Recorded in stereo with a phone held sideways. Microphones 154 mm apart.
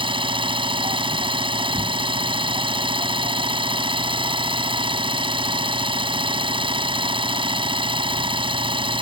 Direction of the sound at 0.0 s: 35° right (ahead or behind).